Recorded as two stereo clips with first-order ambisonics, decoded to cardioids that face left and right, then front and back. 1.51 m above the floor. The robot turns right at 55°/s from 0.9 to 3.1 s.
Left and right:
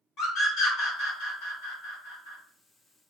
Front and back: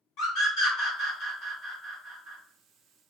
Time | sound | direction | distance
0.2 | a scream | 40° left | 1.7 m